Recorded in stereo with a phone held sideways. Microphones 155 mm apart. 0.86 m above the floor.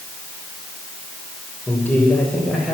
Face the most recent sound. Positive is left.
turn(degrees=-5)  # may be behind; listen again after turning